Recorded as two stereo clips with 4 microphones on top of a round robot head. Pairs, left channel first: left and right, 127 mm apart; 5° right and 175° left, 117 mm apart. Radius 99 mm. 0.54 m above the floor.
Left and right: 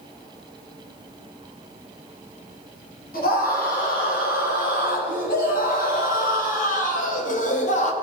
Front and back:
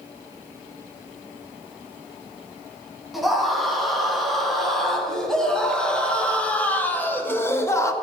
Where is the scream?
85° left, 5 m; by 7.9 s 60° left, 1.7 m.